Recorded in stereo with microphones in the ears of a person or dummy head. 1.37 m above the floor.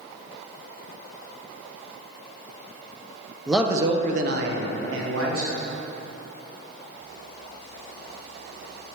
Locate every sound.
3.5 s a man speaking: centre (ahead or behind), 0.6 m; by 5.6 s 75° right (ahead or behind), 1.6 m